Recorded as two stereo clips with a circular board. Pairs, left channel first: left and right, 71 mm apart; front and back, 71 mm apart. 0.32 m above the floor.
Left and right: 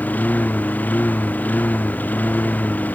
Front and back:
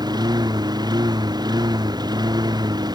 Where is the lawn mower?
160° left.